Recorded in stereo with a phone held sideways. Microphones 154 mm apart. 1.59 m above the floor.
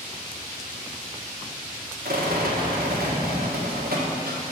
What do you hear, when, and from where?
2.0 s a rattle: 75° right (ahead or behind), 1.4 m